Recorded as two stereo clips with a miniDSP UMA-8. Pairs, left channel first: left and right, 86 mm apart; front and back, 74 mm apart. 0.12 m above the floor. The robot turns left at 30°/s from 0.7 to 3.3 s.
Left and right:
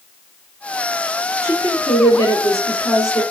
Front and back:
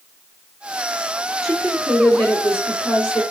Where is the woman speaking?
110° left, 2.5 m; by 3.2 s 55° left, 2.5 m.